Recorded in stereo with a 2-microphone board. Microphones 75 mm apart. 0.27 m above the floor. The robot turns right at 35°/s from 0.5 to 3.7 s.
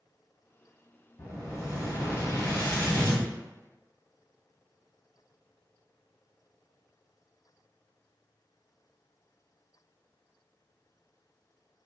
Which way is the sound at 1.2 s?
95° left.